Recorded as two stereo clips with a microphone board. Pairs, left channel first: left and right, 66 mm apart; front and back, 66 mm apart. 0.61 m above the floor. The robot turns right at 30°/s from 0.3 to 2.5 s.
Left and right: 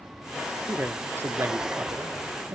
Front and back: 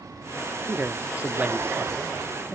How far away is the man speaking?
About 0.8 m.